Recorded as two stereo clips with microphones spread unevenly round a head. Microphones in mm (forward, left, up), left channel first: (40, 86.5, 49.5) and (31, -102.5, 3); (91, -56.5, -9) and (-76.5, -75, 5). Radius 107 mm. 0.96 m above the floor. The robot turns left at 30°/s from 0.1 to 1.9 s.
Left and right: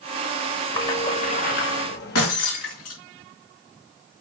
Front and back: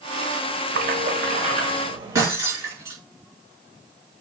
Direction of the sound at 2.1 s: 110° left.